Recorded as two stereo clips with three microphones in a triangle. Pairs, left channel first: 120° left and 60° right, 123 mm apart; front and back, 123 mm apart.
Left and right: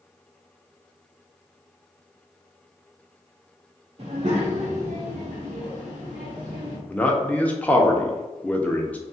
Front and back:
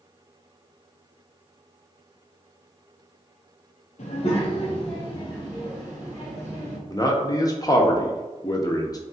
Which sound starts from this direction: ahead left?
A man speaking, at 6.9 s.